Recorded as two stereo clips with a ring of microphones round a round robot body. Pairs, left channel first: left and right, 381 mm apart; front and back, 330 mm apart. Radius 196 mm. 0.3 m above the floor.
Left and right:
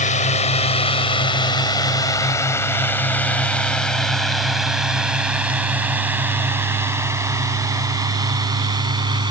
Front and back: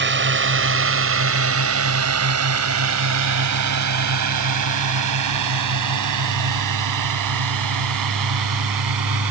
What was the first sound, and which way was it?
A drone, 150° left.